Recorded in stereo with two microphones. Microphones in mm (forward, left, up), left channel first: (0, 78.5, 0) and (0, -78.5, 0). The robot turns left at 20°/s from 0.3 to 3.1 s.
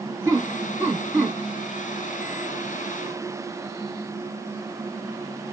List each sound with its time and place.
0.2 s laughter: 20° right (ahead or behind), 1.1 m; by 1.4 s 10° right (ahead or behind), 1.1 m